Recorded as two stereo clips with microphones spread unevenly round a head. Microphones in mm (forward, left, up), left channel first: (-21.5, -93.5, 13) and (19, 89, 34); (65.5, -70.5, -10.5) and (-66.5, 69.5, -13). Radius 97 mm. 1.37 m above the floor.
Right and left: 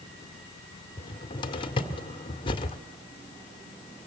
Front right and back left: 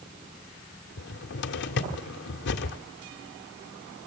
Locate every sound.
1.0 s a cupboard door: 35° right, 1.7 m